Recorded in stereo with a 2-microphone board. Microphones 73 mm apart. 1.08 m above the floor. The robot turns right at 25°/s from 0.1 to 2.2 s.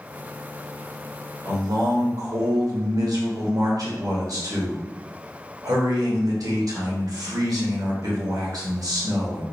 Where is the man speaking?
75° right (ahead or behind), 1.4 m; by 9.4 s 55° right (ahead or behind), 1.4 m.